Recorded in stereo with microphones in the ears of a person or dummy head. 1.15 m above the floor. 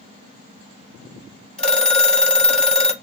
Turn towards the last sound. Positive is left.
turn(degrees=5)  # may be behind; listen again after turning